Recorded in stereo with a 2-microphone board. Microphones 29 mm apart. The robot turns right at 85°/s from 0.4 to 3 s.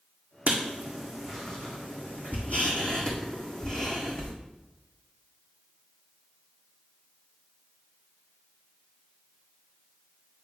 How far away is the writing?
About 1.7 m.